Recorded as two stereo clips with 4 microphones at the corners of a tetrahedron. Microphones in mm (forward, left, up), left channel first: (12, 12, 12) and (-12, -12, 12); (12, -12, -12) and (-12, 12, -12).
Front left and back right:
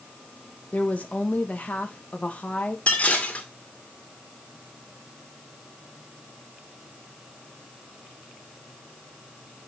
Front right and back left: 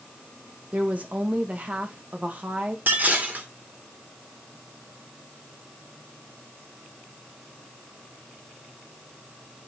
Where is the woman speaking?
95° left, 1.5 m.